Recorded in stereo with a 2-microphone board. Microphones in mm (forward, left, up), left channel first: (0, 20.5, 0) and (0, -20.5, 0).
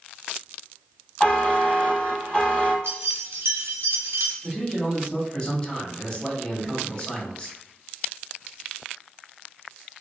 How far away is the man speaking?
About 1.1 m.